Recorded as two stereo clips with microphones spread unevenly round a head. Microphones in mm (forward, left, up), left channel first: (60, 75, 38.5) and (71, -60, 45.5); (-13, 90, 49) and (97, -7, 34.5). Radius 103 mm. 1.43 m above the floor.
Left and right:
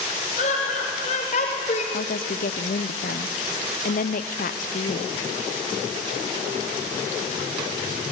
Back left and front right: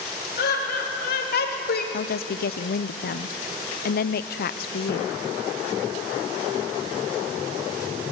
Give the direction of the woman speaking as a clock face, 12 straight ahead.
8 o'clock.